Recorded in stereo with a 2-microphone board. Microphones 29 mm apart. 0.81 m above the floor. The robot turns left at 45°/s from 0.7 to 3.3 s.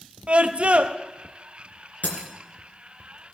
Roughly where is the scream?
Right.